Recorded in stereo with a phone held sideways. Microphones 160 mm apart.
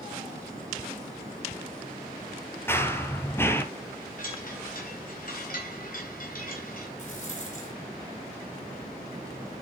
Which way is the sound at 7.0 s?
55° left (ahead or behind).